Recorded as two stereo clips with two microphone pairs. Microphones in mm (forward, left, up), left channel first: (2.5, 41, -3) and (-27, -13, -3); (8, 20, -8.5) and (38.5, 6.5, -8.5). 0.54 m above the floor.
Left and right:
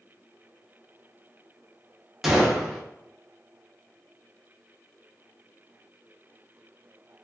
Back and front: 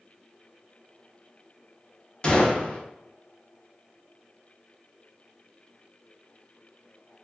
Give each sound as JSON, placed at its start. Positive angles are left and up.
{"t": 2.2, "sound": "a gunshot", "azimuth_deg": 165, "distance_m": 0.5}